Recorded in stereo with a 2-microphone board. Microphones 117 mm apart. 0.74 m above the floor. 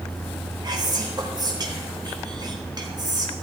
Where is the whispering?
40° right (ahead or behind), 1.3 m.